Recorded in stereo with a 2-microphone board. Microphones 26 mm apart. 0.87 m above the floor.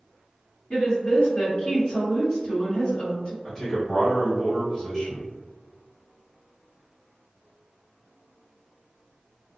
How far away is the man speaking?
About 0.8 m.